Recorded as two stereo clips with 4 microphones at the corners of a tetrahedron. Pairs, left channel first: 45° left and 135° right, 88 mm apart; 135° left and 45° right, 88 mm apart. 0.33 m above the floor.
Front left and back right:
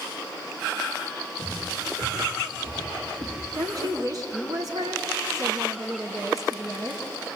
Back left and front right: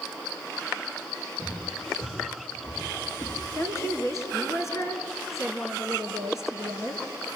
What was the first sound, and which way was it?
Footsteps, 175° right.